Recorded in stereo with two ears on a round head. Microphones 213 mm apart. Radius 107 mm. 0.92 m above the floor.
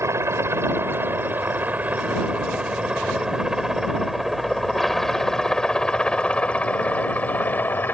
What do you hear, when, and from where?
0.0 s a helicopter: 10° right (ahead or behind); by 7.9 s 10° left (ahead or behind)